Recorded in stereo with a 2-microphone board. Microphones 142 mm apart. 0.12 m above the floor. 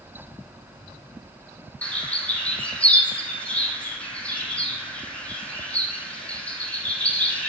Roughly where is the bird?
Centre.